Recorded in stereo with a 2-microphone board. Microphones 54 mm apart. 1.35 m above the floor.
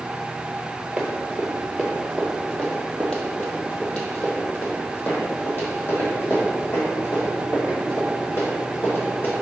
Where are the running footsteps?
20° right (ahead or behind), 1.7 m; by 9.3 s 50° left (ahead or behind), 5.5 m.